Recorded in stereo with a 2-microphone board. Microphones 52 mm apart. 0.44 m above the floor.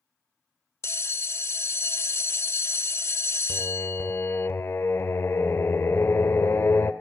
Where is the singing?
55° left (ahead or behind), 1.2 m.